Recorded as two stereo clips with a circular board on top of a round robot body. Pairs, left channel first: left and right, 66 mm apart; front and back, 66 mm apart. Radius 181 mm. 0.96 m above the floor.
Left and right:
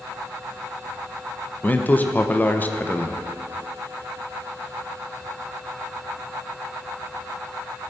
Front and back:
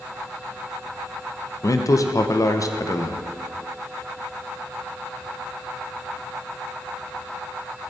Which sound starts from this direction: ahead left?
A man speaking, at 1.6 s.